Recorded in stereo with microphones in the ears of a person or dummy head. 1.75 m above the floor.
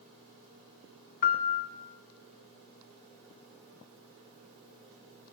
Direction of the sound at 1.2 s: 50° left (ahead or behind).